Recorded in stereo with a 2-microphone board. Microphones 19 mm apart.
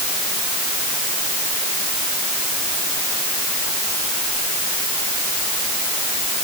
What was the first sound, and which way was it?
Only background noise.